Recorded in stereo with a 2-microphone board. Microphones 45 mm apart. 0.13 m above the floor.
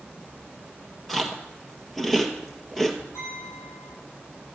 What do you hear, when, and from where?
0.0 s an insect: 15° right (ahead or behind), 1.7 m
1.1 s chewing: centre (ahead or behind), 1.6 m
3.1 s a clink: 80° left, 7.5 m